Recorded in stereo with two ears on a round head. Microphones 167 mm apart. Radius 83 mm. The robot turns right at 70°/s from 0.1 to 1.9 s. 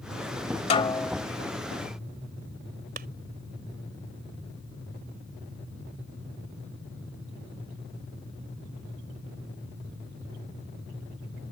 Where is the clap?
50° right (ahead or behind).